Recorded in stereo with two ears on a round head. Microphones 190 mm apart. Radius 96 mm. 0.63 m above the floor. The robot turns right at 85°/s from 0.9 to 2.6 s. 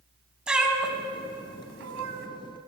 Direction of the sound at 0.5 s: 5° right (ahead or behind).